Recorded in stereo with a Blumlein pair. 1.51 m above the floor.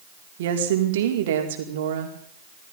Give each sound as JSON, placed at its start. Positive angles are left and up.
{"t": 0.4, "sound": "a woman speaking", "azimuth_deg": -55, "distance_m": 5.0}